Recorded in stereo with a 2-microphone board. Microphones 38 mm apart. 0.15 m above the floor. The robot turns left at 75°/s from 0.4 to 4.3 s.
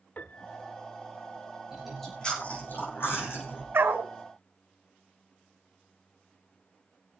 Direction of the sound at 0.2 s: 40° left (ahead or behind).